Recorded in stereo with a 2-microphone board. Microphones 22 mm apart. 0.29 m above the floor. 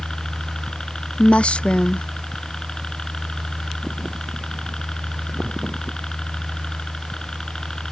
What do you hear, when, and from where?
0.0 s a helicopter: 35° left (ahead or behind)
1.2 s a woman speaking: 60° left (ahead or behind)